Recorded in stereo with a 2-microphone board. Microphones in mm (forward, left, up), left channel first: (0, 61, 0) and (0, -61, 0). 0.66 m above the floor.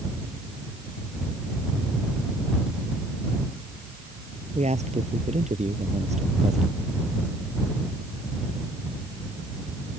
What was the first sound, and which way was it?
A man speaking, 65° right (ahead or behind).